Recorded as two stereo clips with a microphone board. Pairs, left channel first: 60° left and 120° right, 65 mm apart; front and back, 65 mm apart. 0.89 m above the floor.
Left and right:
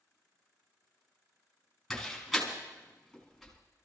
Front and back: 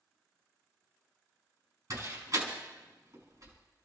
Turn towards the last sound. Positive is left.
turn(degrees=150)